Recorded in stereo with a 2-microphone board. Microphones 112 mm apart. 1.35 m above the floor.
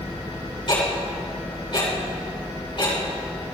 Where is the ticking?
50° left (ahead or behind), 5 m.